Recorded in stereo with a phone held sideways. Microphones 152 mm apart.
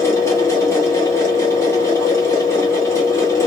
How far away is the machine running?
About 1.6 m.